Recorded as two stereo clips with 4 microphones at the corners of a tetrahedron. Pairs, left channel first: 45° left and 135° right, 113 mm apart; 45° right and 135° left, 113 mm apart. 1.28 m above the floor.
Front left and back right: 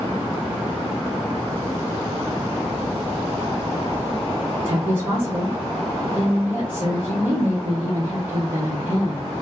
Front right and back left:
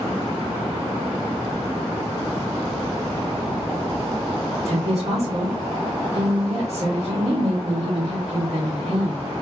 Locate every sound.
4.7 s a woman speaking: 150° left, 1.4 m